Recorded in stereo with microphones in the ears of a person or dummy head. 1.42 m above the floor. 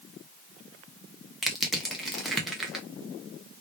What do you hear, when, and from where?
1.4 s crushing: 5° right (ahead or behind), 0.7 m